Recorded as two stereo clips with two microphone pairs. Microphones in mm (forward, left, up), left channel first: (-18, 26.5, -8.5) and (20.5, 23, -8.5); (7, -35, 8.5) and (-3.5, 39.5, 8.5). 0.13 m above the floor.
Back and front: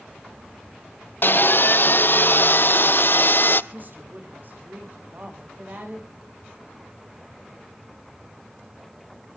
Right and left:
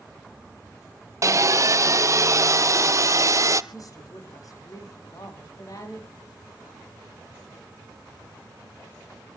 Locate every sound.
1.2 s sawing: 145° left, 0.7 m
3.7 s a woman speaking: 45° right, 6.5 m